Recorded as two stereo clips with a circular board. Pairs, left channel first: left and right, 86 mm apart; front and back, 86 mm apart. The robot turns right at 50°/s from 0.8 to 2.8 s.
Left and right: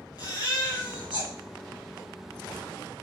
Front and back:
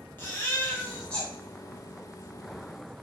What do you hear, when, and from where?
0.2 s a baby crying: 65° left, 2.5 m; by 1.3 s 90° left, 2.5 m